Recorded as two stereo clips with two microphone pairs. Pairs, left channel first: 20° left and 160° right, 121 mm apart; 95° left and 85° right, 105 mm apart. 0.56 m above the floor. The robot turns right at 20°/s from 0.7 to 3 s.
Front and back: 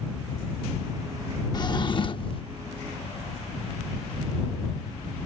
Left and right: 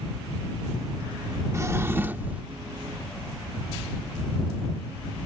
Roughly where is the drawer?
Ahead right.